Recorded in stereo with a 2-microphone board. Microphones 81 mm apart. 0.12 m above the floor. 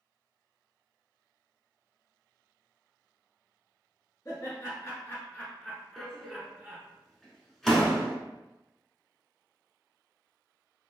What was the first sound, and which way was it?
Laughter, 45° left (ahead or behind).